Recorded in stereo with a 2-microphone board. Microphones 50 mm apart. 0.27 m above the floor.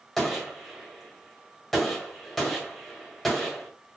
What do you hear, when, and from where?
0.2 s a gunshot: 5° left (ahead or behind), 1.5 m